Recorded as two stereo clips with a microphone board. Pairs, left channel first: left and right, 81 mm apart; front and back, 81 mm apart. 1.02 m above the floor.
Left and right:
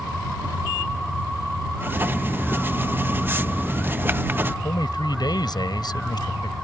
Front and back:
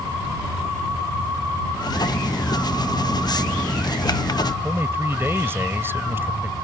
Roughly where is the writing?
Ahead right.